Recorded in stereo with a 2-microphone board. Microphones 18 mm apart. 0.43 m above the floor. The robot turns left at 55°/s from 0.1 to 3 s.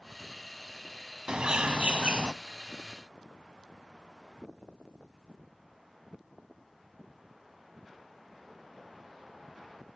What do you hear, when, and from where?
1.3 s a bird: 65° right, 0.5 m; by 2.3 s 120° right, 0.5 m